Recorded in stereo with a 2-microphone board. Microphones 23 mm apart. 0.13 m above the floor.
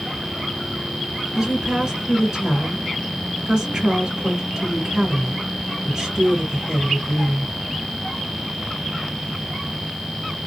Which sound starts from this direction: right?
A woman speaking, at 1.4 s.